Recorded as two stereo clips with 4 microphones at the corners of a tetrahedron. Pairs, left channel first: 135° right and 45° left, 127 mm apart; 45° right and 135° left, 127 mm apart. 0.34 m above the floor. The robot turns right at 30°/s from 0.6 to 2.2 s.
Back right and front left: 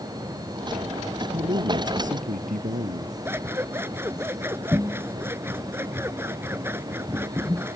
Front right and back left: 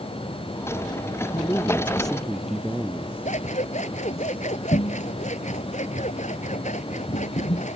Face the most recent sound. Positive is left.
turn(degrees=-25)